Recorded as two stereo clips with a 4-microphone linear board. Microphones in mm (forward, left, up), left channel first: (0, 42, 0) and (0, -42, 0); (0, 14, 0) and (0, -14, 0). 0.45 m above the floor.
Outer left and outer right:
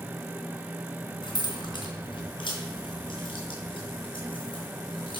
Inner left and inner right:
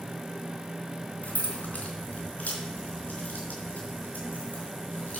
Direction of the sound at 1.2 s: 70° left (ahead or behind).